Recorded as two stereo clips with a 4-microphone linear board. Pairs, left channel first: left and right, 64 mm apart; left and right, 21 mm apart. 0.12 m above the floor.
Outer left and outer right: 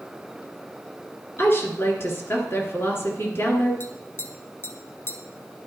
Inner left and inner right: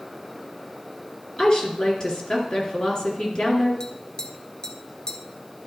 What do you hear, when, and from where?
1.4 s a woman speaking: 35° left (ahead or behind), 2 m
3.8 s tapping: 35° left (ahead or behind), 0.8 m